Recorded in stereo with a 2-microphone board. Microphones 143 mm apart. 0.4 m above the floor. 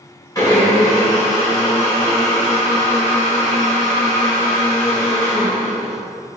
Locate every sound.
0.3 s a blender: 25° left (ahead or behind), 1.8 m